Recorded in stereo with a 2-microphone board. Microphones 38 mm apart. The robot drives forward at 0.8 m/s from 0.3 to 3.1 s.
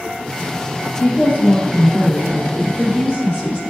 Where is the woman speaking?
40° left (ahead or behind), 3.5 m; by 3.6 s 25° left (ahead or behind), 4.5 m.